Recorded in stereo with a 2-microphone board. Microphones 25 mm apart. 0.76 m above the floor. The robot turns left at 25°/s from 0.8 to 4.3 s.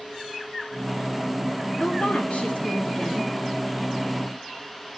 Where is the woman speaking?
95° left, 1.7 m; by 3.3 s 60° left, 1.7 m.